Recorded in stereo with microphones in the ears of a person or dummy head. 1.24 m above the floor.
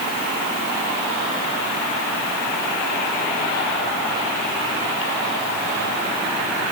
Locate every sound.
Only background noise.